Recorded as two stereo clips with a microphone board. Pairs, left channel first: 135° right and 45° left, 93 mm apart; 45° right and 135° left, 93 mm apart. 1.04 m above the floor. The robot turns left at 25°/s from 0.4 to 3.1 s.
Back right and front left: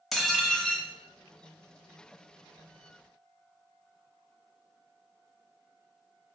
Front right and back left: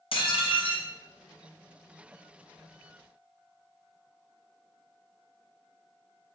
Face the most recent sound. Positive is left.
turn(degrees=-115)